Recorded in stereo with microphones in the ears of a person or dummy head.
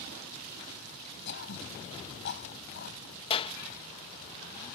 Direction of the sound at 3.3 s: 30° left (ahead or behind).